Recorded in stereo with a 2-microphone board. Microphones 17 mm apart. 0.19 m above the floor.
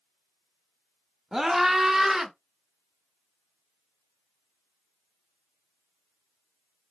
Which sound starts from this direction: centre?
A scream, at 1.3 s.